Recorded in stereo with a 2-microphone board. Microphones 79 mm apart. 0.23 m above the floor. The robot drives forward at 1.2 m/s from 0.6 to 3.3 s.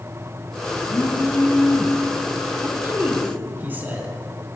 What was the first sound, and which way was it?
A phone buzzing, 40° left (ahead or behind).